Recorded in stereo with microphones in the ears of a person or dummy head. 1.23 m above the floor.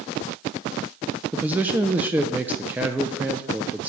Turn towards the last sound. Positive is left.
turn(degrees=-10)  # may be behind; listen again after turning